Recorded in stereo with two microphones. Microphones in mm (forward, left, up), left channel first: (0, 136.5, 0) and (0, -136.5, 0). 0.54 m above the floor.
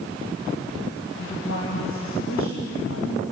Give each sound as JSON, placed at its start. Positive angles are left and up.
{"t": 1.2, "sound": "a woman speaking", "side_deg": 70, "distance_m": 2.5}